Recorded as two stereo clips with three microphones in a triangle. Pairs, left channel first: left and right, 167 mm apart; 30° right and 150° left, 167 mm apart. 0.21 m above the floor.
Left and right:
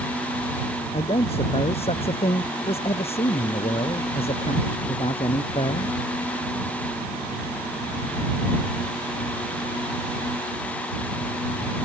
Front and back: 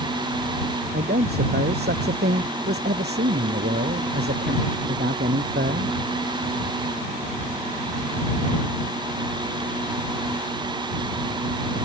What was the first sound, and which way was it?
A man speaking, 145° left.